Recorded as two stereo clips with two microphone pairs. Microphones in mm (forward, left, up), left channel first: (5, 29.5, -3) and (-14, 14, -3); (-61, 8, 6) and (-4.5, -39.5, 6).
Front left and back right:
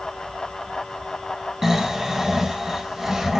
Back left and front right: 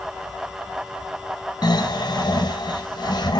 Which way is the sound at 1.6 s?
150° left.